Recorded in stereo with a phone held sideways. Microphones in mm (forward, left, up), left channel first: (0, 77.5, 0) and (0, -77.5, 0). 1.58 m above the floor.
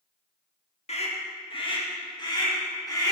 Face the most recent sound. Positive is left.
turn(degrees=25)  # may be behind; listen again after turning